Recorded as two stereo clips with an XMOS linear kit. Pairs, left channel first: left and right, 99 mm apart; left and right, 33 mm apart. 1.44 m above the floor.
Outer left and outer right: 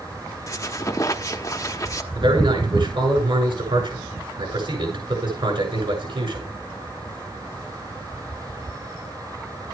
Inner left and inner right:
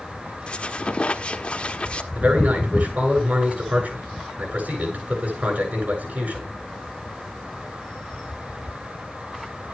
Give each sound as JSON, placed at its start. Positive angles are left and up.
{"t": 0.5, "sound": "a squeak", "side_deg": 35, "distance_m": 1.2}
{"t": 2.1, "sound": "a man speaking", "side_deg": -65, "distance_m": 7.5}